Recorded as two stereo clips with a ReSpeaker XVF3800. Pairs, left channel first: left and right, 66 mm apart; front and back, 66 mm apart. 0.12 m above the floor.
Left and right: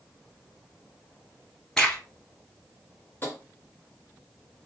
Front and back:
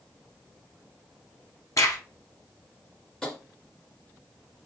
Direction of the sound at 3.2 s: 75° left.